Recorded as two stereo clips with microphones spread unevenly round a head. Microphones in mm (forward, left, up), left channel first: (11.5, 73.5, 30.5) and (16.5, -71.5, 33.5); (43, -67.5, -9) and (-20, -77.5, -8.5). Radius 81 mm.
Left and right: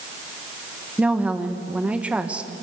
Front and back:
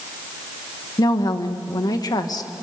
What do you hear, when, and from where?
1.0 s a woman speaking: 5° right, 1.7 m